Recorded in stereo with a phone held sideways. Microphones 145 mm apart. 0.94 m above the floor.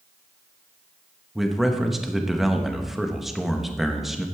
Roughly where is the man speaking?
Centre.